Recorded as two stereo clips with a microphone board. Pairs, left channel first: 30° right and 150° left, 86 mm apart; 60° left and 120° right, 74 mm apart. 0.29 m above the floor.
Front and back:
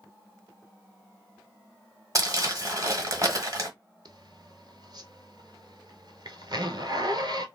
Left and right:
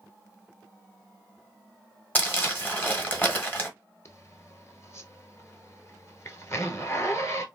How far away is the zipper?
About 0.9 m.